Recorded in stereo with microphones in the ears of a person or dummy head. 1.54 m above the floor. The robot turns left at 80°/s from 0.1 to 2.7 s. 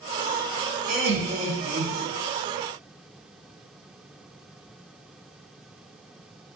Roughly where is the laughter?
Ahead right.